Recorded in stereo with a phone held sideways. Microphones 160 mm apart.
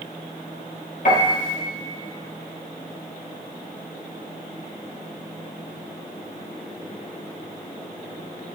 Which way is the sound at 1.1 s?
55° left (ahead or behind).